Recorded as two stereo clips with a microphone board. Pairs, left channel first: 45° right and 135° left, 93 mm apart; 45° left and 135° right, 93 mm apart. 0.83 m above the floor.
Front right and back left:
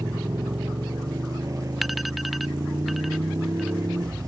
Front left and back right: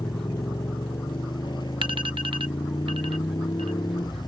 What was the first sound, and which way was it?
A motorcycle, 85° left.